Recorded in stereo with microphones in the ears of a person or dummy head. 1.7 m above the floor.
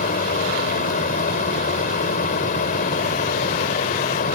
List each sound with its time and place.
0.0 s a fan: 50° left (ahead or behind)